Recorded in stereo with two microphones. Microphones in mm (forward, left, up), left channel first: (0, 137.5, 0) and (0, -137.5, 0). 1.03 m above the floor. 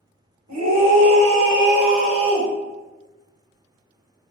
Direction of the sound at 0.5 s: 70° right (ahead or behind).